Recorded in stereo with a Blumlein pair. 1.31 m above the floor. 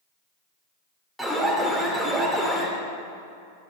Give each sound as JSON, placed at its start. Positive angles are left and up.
{"t": 1.2, "sound": "an alarm", "azimuth_deg": -5, "distance_m": 2.5}